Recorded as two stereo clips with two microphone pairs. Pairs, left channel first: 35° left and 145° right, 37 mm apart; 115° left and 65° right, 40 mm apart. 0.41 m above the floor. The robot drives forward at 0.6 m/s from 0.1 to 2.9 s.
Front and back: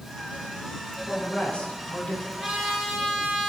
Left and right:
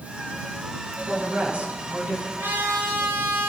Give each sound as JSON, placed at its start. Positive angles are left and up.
{"t": 1.1, "sound": "a woman speaking", "azimuth_deg": -15, "distance_m": 5.0}
{"t": 2.4, "sound": "a trumpet", "azimuth_deg": -60, "distance_m": 5.5}